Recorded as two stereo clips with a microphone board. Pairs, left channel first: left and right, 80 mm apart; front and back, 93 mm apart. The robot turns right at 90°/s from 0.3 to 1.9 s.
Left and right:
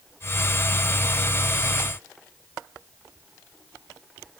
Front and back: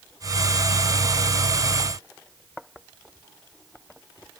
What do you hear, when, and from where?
Only background noise.